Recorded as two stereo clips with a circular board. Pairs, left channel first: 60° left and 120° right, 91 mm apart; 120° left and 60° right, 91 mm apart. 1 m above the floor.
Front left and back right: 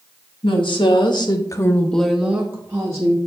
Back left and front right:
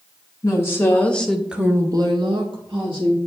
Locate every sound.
0.4 s a woman speaking: 65° left, 2 m; by 3.2 s 70° right, 2 m